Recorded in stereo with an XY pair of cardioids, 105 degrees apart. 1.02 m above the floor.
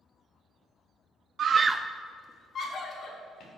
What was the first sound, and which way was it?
A scream, 60° right.